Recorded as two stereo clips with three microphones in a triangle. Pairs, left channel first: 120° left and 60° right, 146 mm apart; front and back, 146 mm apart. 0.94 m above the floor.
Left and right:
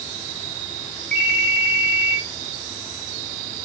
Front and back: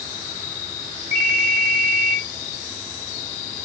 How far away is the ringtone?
About 2 m.